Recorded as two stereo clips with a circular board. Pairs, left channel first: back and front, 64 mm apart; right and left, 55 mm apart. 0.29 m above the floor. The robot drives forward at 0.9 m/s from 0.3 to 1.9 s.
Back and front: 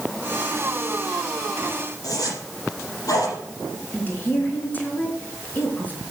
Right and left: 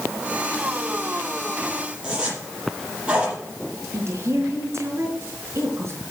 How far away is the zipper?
About 5.5 m.